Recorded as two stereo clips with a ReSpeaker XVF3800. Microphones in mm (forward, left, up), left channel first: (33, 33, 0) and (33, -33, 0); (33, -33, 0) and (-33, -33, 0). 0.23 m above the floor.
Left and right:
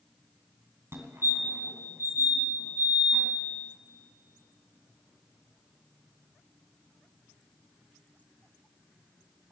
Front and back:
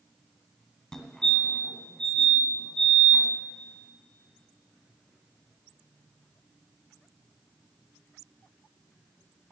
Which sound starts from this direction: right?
A fire alarm, at 0.9 s.